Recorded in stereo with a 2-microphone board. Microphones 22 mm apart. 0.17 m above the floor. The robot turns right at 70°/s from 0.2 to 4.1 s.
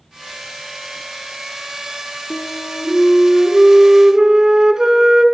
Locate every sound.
2.3 s a flute: 90° left, 1.3 m; by 5.2 s 145° right, 1.3 m